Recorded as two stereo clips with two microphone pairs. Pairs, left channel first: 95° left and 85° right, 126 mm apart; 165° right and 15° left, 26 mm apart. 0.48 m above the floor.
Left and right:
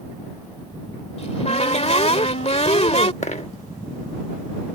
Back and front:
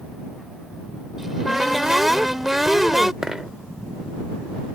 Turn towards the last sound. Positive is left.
turn(degrees=85)